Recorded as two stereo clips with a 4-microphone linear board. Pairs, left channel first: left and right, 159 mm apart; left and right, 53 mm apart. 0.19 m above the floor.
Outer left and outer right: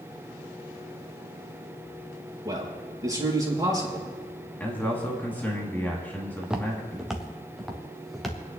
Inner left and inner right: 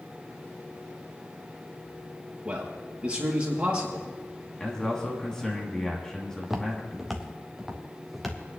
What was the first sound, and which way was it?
A man speaking, 20° right (ahead or behind).